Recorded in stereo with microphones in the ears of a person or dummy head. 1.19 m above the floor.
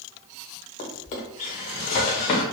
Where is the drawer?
30° left (ahead or behind), 0.6 m.